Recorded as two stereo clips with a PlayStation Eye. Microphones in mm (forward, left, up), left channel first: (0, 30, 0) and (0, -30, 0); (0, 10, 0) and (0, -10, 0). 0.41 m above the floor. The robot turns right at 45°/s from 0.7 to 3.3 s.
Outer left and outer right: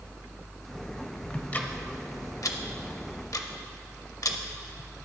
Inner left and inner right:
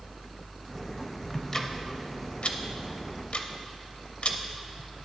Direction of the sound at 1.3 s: 15° left (ahead or behind).